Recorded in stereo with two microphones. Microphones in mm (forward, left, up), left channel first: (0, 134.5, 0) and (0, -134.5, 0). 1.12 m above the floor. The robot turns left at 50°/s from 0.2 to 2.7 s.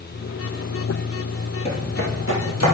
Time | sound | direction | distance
1.6 | footsteps | 20° left (ahead or behind) | 1.7 m